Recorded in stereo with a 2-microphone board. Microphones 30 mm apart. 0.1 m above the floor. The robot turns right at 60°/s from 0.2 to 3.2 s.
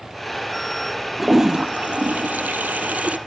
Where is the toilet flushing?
170° right, 0.6 m; by 3.2 s 50° right, 0.6 m.